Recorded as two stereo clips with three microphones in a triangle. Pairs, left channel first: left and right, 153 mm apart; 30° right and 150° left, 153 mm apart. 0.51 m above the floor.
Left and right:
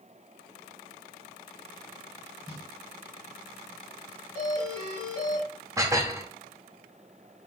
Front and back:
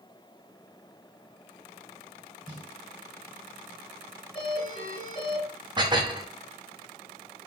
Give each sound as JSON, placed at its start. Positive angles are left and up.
{"t": 2.5, "sound": "a snare drum", "azimuth_deg": -150, "distance_m": 2.0}
{"t": 4.3, "sound": "a doorbell", "azimuth_deg": -110, "distance_m": 2.5}
{"t": 5.8, "sound": "dishes clattering", "azimuth_deg": -155, "distance_m": 0.7}